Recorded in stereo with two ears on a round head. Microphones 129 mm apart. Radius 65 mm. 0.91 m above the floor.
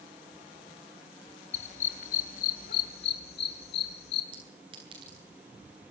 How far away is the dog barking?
About 2 m.